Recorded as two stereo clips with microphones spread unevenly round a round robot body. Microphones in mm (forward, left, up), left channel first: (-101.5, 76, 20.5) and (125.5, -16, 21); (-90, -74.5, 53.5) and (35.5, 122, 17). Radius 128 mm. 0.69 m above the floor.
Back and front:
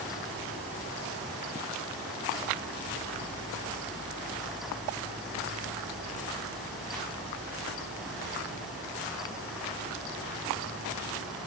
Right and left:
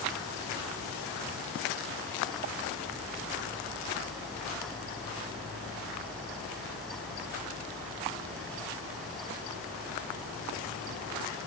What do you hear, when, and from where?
Only background noise.